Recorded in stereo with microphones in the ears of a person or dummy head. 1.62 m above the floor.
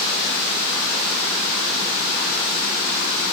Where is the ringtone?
I don't hear a ringtone.